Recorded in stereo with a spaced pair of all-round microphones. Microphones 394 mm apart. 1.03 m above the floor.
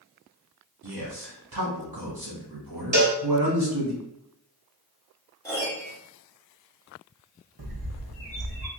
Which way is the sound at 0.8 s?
70° right (ahead or behind).